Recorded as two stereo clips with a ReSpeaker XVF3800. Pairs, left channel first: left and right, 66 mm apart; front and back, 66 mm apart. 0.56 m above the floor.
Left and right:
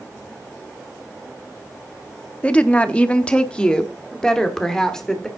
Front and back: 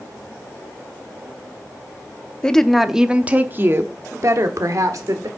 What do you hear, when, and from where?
2.4 s a woman speaking: 50° left, 0.7 m; by 5.3 s 170° left, 1.5 m